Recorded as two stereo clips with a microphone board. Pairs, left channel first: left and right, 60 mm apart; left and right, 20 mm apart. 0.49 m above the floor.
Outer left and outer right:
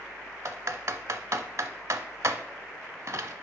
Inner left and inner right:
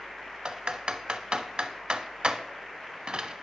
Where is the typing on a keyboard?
60° right (ahead or behind), 0.7 m.